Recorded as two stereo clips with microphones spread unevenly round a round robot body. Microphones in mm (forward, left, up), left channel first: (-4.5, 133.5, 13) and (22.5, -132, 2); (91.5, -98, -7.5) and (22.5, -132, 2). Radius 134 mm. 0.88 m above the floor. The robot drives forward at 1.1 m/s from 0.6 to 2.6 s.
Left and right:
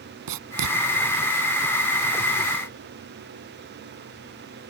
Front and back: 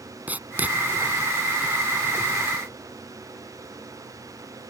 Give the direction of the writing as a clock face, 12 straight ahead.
3 o'clock.